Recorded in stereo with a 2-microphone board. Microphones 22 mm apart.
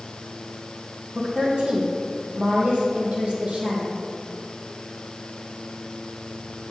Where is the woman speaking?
70° right (ahead or behind), 3 m.